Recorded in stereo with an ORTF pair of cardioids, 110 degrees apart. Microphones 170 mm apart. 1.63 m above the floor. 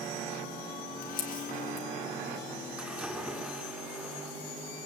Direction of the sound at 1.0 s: 55° left.